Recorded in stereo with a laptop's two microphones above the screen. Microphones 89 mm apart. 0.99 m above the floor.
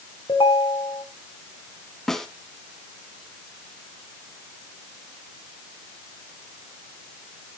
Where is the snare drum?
5° left (ahead or behind), 1.2 m.